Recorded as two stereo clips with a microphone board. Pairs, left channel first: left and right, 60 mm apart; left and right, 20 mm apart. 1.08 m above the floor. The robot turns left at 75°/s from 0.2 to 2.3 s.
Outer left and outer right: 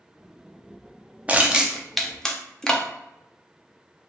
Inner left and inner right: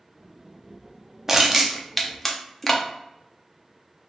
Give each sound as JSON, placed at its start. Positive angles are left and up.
{"t": 1.3, "sound": "crushing", "side_deg": -20, "distance_m": 0.6}